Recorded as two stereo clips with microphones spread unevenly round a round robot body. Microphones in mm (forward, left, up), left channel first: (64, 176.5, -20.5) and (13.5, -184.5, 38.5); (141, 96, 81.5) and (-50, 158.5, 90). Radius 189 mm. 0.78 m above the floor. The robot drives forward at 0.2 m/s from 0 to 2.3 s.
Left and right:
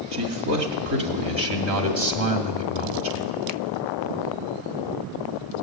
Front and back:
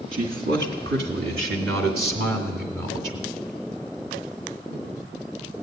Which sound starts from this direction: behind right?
A man speaking, at 0.1 s.